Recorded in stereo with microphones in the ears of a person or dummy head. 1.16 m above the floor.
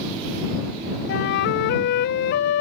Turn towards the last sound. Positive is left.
turn(degrees=65)  # may be behind; listen again after turning